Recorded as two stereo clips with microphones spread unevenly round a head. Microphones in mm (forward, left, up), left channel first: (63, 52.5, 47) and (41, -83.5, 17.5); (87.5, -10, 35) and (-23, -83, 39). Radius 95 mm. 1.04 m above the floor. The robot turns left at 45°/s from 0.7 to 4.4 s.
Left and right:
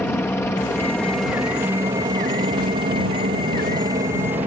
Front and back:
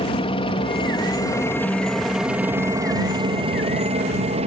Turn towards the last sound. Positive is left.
turn(degrees=-160)